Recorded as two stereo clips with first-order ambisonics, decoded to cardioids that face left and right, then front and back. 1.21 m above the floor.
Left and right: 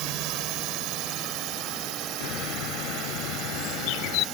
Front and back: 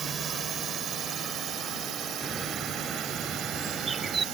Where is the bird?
105° left.